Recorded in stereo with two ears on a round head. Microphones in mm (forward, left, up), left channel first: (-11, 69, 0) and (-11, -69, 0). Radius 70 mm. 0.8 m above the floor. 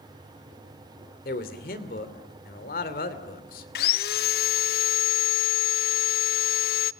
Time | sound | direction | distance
1.2 | a man speaking | 60° left (ahead or behind) | 2.5 m
3.8 | sawing | 65° left (ahead or behind) | 0.6 m